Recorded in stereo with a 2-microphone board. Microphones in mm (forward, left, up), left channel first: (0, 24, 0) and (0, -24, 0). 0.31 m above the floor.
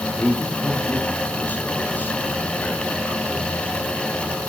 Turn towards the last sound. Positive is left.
turn(degrees=40)  # may be behind; listen again after turning